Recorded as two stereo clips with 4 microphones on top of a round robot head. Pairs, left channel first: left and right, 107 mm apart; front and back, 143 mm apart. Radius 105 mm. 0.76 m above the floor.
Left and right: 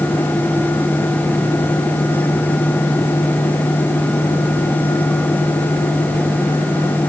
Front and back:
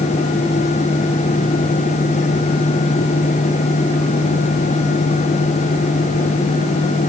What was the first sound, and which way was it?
Only background noise.